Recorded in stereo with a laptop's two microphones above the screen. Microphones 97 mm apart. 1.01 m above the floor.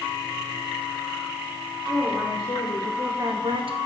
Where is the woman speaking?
15° left (ahead or behind), 2.5 m; by 3.8 s 65° right (ahead or behind), 0.9 m.